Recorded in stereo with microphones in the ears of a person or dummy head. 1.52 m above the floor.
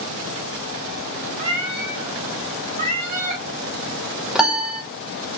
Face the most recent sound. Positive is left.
turn(degrees=0)  # may be behind; listen again after turning